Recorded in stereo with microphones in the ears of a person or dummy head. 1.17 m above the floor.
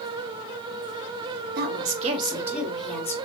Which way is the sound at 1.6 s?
55° right (ahead or behind).